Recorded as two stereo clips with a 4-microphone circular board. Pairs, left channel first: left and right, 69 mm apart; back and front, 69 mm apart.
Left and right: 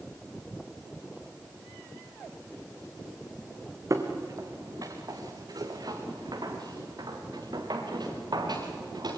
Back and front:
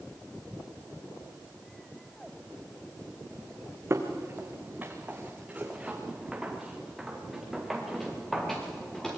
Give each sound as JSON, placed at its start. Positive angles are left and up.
{"t": 3.9, "sound": "footsteps", "azimuth_deg": -55, "distance_m": 3.0}